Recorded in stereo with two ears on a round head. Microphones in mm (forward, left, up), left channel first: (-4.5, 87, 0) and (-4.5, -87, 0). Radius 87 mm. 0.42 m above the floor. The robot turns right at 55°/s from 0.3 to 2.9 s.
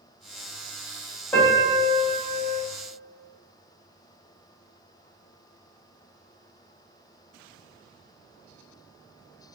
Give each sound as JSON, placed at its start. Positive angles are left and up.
{"t": 1.3, "sound": "a piano", "azimuth_deg": 165, "distance_m": 1.2}